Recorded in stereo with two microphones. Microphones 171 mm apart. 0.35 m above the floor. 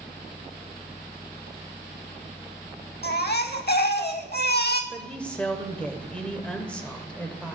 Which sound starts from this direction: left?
A baby crying, at 3.0 s.